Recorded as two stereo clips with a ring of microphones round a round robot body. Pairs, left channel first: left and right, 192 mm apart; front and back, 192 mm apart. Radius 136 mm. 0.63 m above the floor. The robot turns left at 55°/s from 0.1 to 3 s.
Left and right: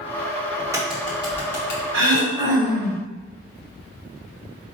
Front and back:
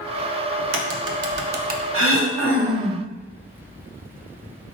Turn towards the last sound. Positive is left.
turn(degrees=165)